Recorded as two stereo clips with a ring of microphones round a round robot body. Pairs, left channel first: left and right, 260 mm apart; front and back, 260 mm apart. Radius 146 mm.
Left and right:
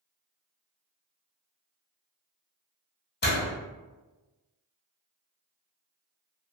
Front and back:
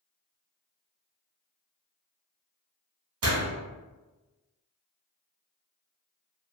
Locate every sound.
3.2 s a door slam: 140° left, 1.3 m